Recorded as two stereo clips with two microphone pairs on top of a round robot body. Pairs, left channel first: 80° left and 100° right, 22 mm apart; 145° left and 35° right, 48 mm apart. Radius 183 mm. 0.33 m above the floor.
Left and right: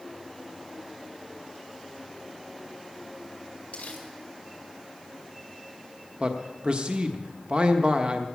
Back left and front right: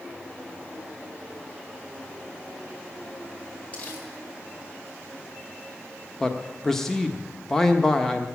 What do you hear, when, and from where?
3.7 s crumpling: 95° left, 6.5 m
6.2 s a man speaking: 140° right, 1.3 m